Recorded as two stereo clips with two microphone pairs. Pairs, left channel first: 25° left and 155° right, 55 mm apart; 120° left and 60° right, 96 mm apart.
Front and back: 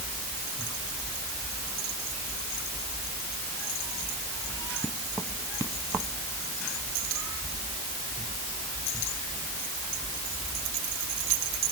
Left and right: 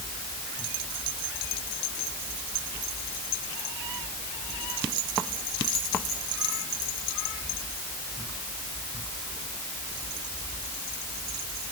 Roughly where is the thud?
No thud in this recording.